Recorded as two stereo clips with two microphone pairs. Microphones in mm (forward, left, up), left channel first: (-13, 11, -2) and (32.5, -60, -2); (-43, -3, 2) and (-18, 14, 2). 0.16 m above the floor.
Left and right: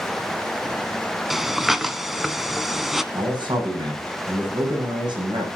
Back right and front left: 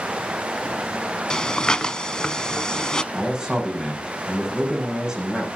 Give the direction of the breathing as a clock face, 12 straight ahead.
5 o'clock.